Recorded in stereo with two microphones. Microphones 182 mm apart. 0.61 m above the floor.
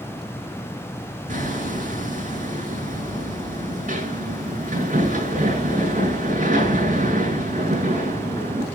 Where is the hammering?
45° right (ahead or behind), 8 m.